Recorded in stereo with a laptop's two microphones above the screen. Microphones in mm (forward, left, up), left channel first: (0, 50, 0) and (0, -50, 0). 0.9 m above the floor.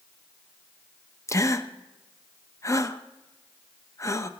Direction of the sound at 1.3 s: 30° left (ahead or behind).